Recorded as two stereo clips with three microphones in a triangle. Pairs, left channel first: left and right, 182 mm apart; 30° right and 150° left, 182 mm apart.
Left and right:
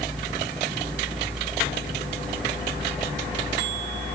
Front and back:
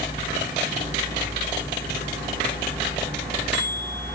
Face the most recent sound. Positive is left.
No sound to turn to.